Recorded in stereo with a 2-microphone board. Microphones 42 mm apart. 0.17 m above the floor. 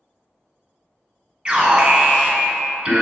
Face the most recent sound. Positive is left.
turn(degrees=-25)  # may be behind; listen again after turning